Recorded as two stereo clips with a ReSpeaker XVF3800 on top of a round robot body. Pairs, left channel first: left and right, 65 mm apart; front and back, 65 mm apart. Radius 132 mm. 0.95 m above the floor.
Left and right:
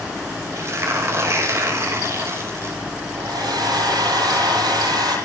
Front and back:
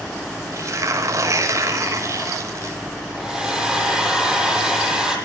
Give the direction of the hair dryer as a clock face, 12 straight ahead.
3 o'clock.